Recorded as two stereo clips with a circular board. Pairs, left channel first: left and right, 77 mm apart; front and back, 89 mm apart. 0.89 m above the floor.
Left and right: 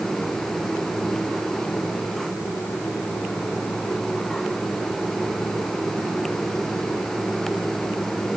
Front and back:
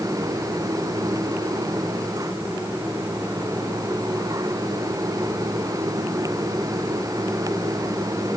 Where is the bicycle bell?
No bicycle bell in this recording.